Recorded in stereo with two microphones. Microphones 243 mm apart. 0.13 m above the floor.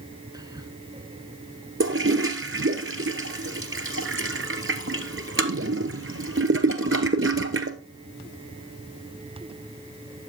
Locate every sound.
0.3 s whispering: 15° right (ahead or behind), 1.4 m
1.8 s a toilet flushing: 60° right (ahead or behind), 1.0 m